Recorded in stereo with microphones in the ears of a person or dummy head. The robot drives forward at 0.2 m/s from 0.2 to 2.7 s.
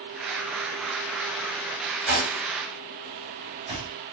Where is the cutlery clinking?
30° right (ahead or behind), 2 m.